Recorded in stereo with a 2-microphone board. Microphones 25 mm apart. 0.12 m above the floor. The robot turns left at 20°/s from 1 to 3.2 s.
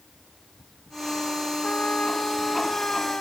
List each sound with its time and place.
1.6 s a trumpet: 85° left; by 3.2 s 55° left